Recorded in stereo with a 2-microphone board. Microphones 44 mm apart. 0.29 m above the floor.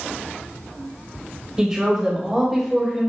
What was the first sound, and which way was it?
A woman speaking, 15° right (ahead or behind).